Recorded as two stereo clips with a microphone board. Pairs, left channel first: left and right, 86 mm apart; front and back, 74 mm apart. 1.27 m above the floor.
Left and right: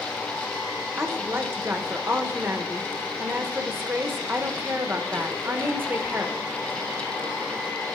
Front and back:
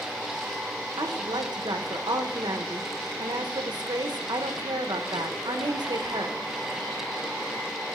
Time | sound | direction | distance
1.0 | a woman speaking | 155° right | 0.8 m